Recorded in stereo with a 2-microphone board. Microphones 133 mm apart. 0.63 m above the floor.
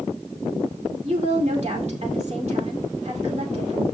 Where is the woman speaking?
60° right (ahead or behind), 2 m.